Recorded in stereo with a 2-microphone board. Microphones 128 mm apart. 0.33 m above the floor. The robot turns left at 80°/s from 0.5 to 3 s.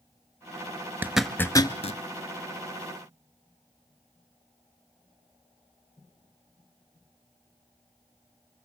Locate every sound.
1.0 s a zipper: 15° right (ahead or behind), 1.1 m; by 2.0 s 60° left (ahead or behind), 1.1 m